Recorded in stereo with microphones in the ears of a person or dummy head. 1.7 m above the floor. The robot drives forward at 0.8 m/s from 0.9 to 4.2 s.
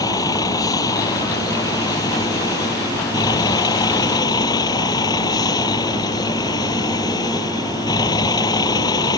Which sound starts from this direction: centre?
A vehicle, at 0.0 s.